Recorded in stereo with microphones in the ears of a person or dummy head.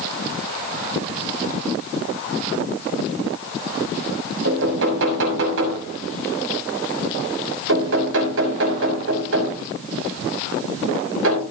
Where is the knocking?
75° right (ahead or behind), 6.5 m.